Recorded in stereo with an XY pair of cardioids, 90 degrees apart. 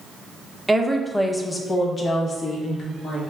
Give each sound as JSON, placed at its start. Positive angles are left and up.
{"t": 0.7, "sound": "a woman speaking", "azimuth_deg": -10, "distance_m": 0.7}